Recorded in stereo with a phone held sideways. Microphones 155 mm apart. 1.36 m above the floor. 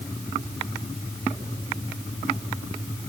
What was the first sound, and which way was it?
Only background noise.